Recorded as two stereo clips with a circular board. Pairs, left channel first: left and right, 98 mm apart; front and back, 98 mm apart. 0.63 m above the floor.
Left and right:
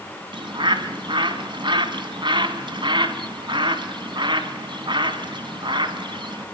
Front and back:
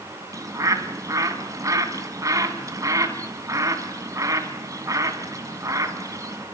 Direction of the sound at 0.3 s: 125° right.